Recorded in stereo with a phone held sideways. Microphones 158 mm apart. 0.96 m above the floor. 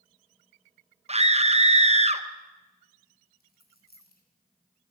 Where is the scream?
45° right (ahead or behind), 0.9 m.